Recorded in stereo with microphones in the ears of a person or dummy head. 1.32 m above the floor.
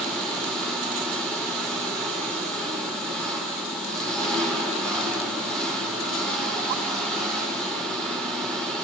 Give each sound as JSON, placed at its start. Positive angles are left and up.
{"t": 0.0, "sound": "an engine running", "side_deg": 10, "distance_m": 6.0}